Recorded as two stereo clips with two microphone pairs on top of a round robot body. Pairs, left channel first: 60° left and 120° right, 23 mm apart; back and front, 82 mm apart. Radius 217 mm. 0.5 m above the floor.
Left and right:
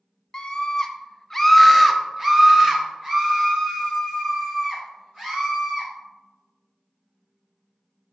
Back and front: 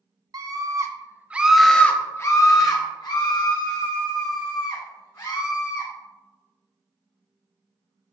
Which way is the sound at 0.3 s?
5° left.